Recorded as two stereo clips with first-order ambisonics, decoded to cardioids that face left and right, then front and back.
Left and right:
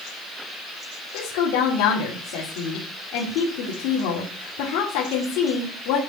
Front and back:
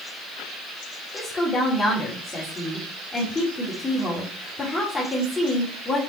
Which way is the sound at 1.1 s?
80° left.